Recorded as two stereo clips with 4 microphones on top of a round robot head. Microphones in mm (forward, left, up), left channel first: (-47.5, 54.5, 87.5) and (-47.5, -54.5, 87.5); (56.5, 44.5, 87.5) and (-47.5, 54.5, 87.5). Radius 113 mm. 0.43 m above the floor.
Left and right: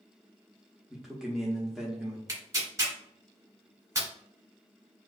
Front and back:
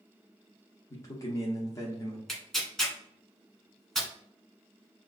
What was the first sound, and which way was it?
A man speaking, 10° right.